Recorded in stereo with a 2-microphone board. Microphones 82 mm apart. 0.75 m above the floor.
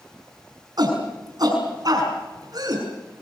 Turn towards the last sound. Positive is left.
turn(degrees=-50)  # may be behind; listen again after turning